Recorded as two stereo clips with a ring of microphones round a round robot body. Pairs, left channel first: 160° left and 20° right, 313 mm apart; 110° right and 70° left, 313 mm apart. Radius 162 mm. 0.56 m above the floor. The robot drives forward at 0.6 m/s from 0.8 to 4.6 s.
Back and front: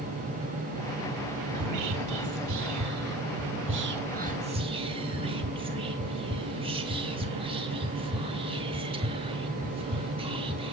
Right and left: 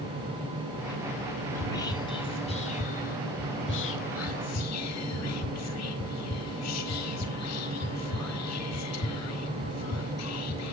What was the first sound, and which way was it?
Whispering, 30° right.